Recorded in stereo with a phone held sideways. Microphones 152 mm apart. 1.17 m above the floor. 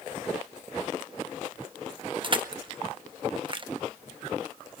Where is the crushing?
35° right (ahead or behind), 0.8 m.